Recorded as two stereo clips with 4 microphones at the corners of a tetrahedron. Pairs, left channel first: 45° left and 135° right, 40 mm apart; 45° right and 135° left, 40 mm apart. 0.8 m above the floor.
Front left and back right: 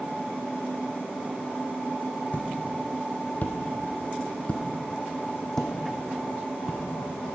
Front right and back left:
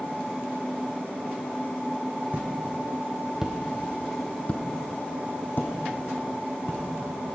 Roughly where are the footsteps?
Left.